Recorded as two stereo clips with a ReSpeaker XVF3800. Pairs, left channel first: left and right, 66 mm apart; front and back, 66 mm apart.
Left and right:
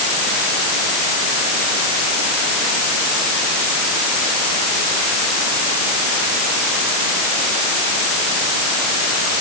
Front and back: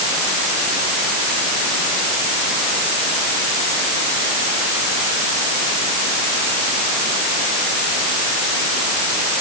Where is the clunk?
No clunk in this recording.